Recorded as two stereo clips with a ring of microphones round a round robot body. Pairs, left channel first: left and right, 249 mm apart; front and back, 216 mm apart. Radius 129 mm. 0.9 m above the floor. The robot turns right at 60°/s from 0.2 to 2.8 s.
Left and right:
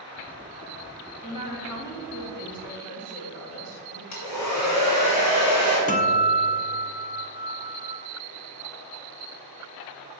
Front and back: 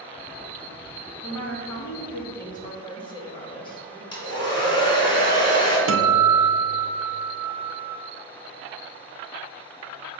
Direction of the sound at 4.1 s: 70° left.